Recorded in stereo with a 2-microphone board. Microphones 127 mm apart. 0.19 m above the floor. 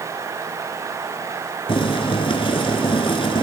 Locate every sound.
1.7 s boiling: 45° left (ahead or behind), 1.3 m